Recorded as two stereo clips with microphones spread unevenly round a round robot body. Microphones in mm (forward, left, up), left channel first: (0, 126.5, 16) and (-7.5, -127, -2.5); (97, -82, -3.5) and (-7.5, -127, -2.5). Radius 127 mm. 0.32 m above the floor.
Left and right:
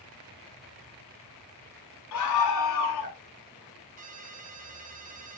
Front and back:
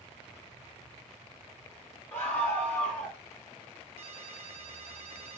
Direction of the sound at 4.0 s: 150° right.